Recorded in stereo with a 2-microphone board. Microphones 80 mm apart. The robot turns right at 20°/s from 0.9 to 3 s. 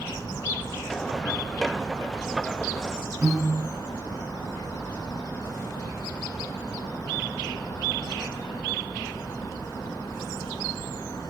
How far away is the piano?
About 1.5 m.